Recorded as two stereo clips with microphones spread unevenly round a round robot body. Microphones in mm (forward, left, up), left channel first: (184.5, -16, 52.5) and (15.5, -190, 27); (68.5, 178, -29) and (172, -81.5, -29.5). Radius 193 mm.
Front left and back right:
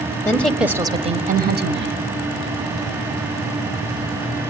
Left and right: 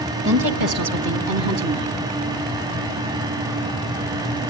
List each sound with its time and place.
0.2 s a woman speaking: 35° right, 2 m; by 2.0 s 110° right, 2.5 m